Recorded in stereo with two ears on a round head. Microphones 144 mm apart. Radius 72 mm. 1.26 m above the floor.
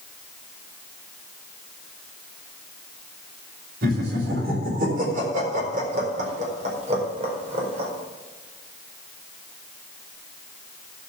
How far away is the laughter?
About 4 m.